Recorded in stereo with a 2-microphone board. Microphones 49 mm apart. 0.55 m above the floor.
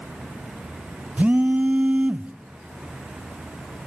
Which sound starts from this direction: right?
A phone buzzing, at 1.2 s.